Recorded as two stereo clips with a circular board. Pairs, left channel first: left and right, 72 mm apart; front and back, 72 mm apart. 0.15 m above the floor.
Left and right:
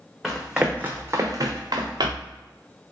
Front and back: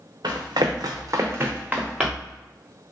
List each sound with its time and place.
0.2 s running footsteps: 175° left, 0.9 m; by 2.4 s 90° right, 1.2 m